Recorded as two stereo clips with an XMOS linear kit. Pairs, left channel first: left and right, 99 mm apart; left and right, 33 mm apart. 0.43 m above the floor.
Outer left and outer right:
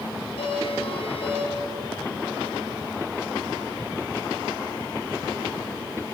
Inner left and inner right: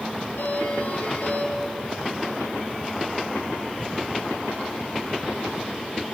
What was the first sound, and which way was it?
A doorbell, 70° left (ahead or behind).